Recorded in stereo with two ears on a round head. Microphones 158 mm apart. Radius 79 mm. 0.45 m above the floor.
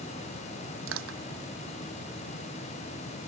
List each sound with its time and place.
0.9 s crushing: 80° right